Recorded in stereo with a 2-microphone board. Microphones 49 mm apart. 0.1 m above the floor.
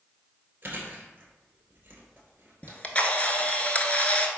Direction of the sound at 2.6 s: 30° left (ahead or behind).